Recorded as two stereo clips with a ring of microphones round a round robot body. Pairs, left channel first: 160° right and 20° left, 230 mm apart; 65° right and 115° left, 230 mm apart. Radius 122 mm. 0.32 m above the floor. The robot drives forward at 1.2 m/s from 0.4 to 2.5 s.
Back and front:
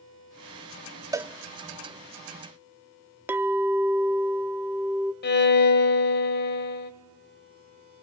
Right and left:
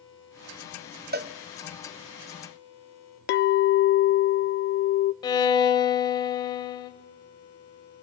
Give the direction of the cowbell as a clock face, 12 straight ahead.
9 o'clock.